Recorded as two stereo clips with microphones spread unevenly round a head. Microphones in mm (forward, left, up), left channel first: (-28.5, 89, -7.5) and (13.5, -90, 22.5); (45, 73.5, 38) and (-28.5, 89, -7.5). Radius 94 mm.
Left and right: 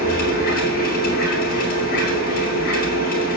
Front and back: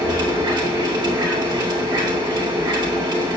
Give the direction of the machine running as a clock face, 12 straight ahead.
7 o'clock.